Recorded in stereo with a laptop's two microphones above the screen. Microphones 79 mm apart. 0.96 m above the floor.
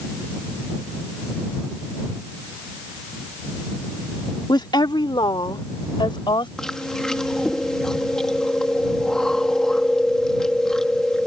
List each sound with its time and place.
4.5 s a woman speaking: 65° left (ahead or behind); by 6.5 s 85° left
6.6 s chewing: 5° left (ahead or behind)